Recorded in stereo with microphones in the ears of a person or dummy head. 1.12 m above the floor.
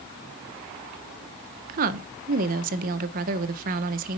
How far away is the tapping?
No tapping in this recording.